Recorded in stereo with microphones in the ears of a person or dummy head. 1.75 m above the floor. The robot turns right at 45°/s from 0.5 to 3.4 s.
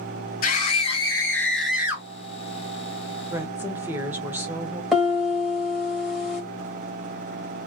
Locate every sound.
0.4 s a scream: 130° left, 0.9 m; by 2.1 s 160° right, 0.9 m
3.3 s a woman speaking: 15° right (ahead or behind), 0.7 m; by 4.8 s 20° right (ahead or behind), 0.7 m
4.9 s a piano: 5° right (ahead or behind), 1.3 m